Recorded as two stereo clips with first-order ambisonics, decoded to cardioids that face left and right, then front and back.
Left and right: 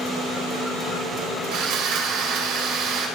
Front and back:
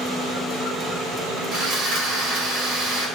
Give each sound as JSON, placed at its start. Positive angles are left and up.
{"t": 1.5, "sound": "sawing", "azimuth_deg": -125, "distance_m": 5.0}